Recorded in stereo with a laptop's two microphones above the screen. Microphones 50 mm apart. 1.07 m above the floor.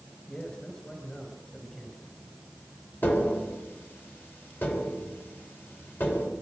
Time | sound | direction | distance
0.3 | a man speaking | 20° left (ahead or behind) | 6 m
3.0 | tapping | 45° left (ahead or behind) | 3 m